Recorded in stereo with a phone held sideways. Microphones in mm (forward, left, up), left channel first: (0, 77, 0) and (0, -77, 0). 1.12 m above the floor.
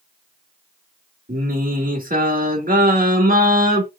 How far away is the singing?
About 1.6 m.